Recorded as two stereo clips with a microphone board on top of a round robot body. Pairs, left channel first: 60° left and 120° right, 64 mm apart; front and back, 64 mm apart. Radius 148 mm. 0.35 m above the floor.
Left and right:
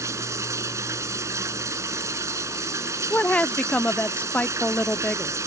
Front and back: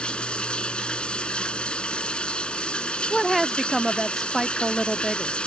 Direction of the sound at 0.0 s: 75° right.